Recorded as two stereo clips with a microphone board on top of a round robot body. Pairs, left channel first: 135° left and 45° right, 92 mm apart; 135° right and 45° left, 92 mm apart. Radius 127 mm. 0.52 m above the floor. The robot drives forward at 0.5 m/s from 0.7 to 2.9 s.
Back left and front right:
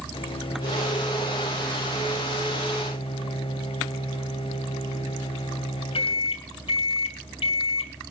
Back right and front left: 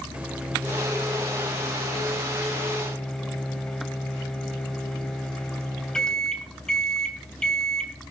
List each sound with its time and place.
0.1 s a microwave: 120° left, 2.0 m; by 7.9 s 145° left, 2.5 m